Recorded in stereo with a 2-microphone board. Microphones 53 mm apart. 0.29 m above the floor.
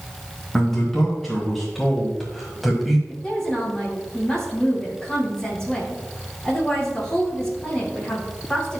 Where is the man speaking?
5° left (ahead or behind), 2.5 m; by 3.0 s centre (ahead or behind), 1.5 m.